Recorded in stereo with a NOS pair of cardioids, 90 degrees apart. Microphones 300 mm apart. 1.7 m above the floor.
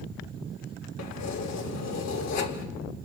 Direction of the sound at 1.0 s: 65° left.